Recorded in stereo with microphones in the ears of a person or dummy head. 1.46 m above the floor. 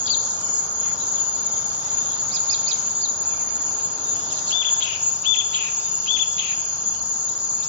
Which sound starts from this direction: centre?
An insect, at 0.0 s.